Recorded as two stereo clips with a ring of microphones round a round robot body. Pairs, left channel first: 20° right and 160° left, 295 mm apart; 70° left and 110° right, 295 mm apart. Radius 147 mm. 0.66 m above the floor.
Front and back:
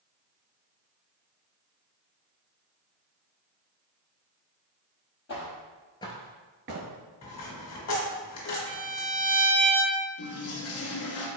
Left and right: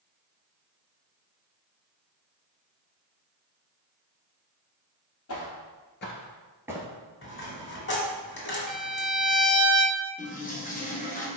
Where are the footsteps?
30° left, 1.3 m; by 6.9 s straight behind, 0.8 m.